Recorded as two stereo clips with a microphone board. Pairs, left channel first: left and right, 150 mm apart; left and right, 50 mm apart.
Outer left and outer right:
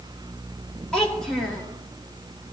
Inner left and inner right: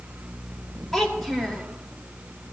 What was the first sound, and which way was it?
A child speaking, 5° left (ahead or behind).